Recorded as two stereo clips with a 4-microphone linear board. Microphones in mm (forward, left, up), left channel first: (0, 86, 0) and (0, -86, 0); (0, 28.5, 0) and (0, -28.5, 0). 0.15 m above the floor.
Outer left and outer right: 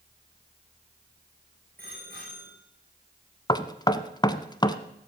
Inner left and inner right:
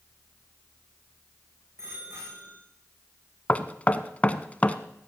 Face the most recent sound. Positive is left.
turn(degrees=25)  # may be behind; listen again after turning